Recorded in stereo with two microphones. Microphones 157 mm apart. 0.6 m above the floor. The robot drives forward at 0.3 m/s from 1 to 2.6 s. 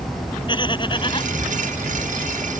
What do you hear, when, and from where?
0.5 s laughter: 30° left (ahead or behind)